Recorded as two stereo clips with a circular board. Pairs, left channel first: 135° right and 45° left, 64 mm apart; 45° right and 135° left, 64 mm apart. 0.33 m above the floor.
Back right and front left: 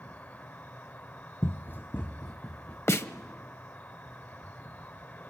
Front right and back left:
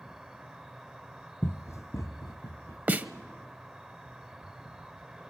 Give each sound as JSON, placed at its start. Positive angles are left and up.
{"t": 0.0, "sound": "an insect", "azimuth_deg": -150, "distance_m": 0.7}
{"t": 1.4, "sound": "running footsteps", "azimuth_deg": -95, "distance_m": 0.6}
{"t": 2.9, "sound": "a snare drum", "azimuth_deg": -170, "distance_m": 0.8}